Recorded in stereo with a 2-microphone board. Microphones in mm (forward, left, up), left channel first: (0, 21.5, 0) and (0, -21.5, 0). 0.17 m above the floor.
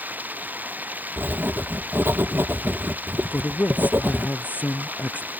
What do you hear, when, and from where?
0.0 s running water: 40° right (ahead or behind)
1.2 s writing: 70° right (ahead or behind)
3.3 s a man speaking: 45° left (ahead or behind)